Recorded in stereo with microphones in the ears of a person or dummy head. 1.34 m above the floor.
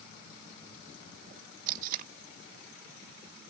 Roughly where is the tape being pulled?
Right.